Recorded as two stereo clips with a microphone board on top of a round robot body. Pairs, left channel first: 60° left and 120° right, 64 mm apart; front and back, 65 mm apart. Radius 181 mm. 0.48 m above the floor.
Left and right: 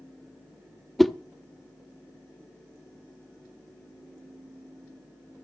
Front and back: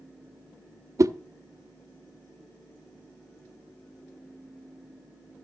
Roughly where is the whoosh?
Behind left.